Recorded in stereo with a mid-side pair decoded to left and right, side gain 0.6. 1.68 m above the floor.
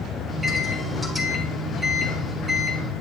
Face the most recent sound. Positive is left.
turn(degrees=0)